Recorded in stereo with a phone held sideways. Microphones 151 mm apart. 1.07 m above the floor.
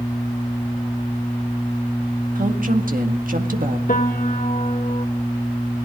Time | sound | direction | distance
2.4 | a woman speaking | 65° right (ahead or behind) | 1.8 m
3.9 | a piano | 65° left (ahead or behind) | 1.7 m